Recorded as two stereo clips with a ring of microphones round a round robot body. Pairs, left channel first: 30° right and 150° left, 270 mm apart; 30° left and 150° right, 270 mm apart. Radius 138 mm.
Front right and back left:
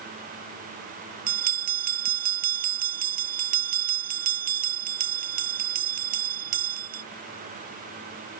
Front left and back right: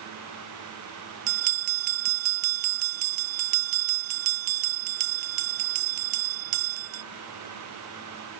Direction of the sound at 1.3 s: 150° right.